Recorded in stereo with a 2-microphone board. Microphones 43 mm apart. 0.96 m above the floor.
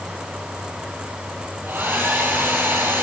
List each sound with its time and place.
1.6 s a hair dryer: 50° right (ahead or behind), 7 m